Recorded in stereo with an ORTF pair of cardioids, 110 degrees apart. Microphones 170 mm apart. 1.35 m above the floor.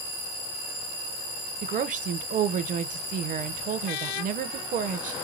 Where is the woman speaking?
50° right, 0.7 m.